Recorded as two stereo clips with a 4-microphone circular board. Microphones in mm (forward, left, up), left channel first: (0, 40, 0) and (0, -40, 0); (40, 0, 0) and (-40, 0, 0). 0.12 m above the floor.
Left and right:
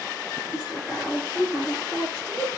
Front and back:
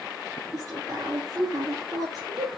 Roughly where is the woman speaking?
Behind.